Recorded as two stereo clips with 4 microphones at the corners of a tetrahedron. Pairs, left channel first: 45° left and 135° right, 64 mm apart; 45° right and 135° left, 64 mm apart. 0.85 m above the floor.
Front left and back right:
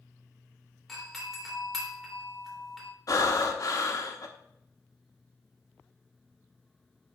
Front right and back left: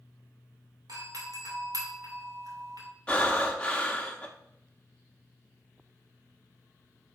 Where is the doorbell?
130° left, 2.5 m.